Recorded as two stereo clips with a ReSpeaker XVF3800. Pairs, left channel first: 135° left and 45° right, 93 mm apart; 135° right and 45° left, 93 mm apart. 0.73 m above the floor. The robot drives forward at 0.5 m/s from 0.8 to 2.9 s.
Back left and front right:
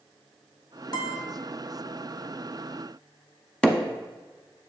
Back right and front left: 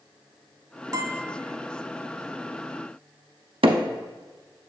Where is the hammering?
55° left, 0.7 m.